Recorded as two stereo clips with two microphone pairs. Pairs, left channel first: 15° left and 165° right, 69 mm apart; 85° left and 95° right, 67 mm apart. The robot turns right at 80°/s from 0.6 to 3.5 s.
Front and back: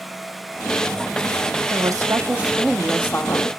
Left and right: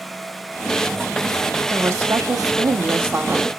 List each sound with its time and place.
1.7 s a woman speaking: 150° right, 1.3 m; by 3.5 s 10° right, 1.3 m